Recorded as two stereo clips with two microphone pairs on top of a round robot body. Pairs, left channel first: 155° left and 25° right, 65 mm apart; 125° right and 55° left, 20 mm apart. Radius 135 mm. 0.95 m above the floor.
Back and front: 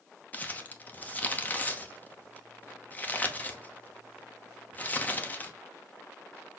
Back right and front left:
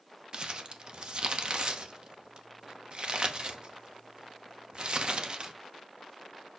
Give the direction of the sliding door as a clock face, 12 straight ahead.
I don't hear a sliding door.